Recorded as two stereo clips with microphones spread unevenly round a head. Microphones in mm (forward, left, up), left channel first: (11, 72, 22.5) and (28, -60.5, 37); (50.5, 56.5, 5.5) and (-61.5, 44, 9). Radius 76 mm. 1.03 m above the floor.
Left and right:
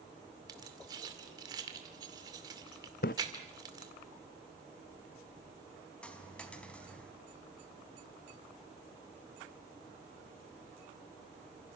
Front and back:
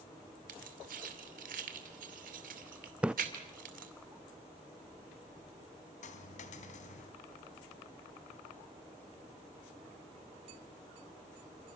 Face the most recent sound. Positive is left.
turn(degrees=15)